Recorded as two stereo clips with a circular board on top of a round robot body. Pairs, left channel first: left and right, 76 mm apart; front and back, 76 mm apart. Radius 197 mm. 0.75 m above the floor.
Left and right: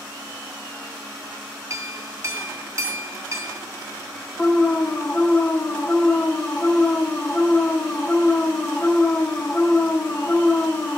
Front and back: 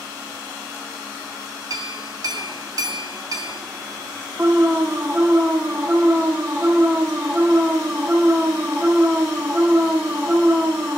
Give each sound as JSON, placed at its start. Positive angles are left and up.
{"t": 1.7, "sound": "a clink", "azimuth_deg": -140, "distance_m": 1.6}
{"t": 4.4, "sound": "an alarm", "azimuth_deg": 135, "distance_m": 1.4}